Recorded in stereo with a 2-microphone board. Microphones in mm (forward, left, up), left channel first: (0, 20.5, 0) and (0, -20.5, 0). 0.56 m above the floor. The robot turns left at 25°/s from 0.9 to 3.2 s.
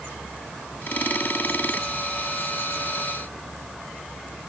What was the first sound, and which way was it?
Only background noise.